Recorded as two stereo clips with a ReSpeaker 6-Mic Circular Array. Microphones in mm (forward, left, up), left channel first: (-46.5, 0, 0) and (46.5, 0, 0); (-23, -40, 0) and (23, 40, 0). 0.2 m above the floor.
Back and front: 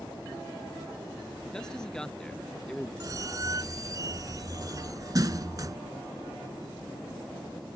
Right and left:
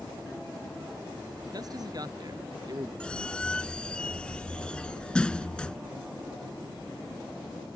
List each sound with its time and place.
1.5 s a man speaking: 100° left
3.0 s a squeak: 40° right